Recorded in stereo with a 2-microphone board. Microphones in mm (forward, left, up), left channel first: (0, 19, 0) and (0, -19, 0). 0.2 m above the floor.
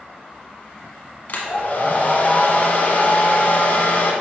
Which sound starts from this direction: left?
A hair dryer, at 1.3 s.